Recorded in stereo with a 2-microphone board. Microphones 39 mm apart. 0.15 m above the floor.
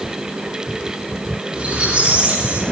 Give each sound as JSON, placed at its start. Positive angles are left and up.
{"t": 1.5, "sound": "a squeak", "side_deg": -35, "distance_m": 7.0}